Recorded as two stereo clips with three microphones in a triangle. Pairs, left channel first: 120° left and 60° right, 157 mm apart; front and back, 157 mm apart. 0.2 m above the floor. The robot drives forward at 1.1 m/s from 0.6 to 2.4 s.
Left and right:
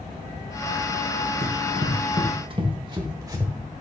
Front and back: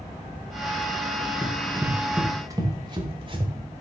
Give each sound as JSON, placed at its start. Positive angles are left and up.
{"t": 1.4, "sound": "running footsteps", "azimuth_deg": -80, "distance_m": 3.0}